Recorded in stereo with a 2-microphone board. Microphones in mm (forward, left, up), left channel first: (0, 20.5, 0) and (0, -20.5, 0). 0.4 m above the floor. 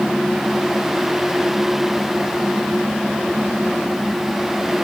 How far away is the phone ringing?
No phone ringing in this recording.